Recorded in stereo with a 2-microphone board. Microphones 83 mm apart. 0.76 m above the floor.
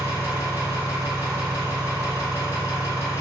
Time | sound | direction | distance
0.0 | an engine running | 30° right (ahead or behind) | 1.9 m